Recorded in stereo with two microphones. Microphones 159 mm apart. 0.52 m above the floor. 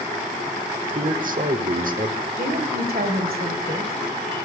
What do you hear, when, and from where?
0.9 s a man speaking: 60° right (ahead or behind), 1.5 m
2.3 s a woman speaking: 70° right (ahead or behind), 3 m